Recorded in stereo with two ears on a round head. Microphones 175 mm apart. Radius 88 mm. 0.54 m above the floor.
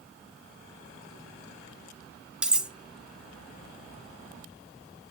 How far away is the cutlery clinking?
About 0.8 m.